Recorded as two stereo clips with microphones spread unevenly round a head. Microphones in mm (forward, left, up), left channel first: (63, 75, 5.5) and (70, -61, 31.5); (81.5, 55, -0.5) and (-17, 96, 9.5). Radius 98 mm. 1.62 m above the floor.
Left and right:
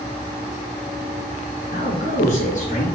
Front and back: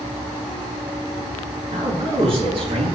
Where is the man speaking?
135° left, 4 m.